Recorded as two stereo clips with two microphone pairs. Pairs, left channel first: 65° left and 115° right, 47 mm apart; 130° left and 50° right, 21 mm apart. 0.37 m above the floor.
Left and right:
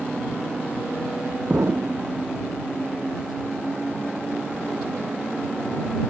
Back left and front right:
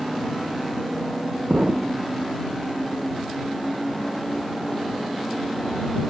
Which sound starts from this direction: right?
An explosion, at 1.5 s.